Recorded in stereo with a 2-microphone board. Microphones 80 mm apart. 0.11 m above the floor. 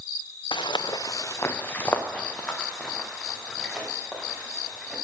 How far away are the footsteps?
About 0.9 m.